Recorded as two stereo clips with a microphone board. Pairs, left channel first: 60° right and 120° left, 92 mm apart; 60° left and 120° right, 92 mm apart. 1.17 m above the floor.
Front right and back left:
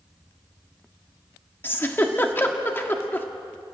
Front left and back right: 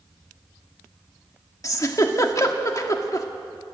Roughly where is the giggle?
Ahead.